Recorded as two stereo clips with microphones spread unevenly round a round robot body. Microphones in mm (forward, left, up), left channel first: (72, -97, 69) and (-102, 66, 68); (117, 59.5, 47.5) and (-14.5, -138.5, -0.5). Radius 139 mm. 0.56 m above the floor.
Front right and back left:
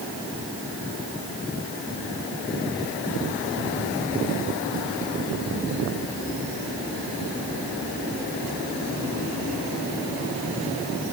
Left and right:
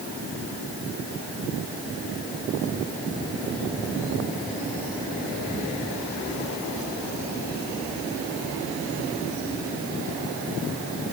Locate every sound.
Only background noise.